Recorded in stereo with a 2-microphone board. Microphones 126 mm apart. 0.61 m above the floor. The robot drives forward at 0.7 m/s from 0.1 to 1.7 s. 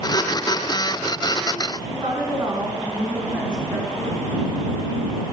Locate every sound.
1.8 s a woman speaking: 40° right (ahead or behind), 5 m